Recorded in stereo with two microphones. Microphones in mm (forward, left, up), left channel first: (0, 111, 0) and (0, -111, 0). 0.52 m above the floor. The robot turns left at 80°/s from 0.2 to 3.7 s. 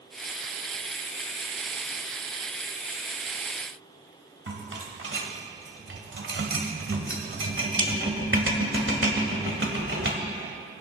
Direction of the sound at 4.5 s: 65° right (ahead or behind).